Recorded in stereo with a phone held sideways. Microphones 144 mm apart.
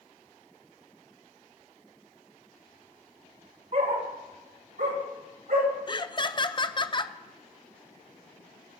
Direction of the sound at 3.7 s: 60° right (ahead or behind).